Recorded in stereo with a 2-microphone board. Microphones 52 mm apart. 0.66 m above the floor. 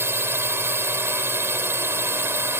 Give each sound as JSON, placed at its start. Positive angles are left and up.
{"t": 0.0, "sound": "a drone", "side_deg": -50}